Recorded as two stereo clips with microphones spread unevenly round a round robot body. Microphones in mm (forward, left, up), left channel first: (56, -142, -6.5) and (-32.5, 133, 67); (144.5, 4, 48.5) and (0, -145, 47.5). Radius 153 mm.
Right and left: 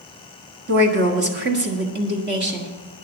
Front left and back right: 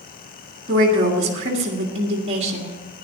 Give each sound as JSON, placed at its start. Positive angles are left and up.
{"t": 0.7, "sound": "a woman speaking", "azimuth_deg": 170, "distance_m": 1.7}